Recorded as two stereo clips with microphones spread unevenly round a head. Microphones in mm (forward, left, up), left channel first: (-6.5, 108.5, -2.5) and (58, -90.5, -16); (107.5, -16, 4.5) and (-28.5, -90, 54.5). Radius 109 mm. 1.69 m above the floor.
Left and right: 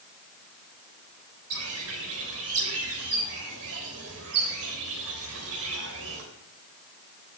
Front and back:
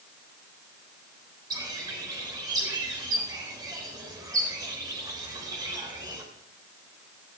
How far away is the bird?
About 3.5 m.